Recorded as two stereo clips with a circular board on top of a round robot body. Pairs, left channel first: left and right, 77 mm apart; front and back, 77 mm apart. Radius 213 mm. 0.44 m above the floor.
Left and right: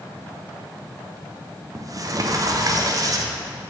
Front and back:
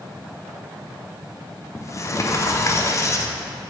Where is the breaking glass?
No breaking glass in this recording.